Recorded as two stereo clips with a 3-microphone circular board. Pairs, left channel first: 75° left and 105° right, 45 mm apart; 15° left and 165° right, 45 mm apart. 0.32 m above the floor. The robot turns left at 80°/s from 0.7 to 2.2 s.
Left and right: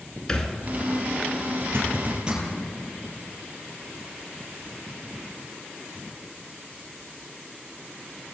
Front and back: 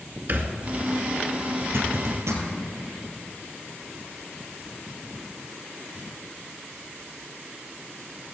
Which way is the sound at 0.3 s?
150° left.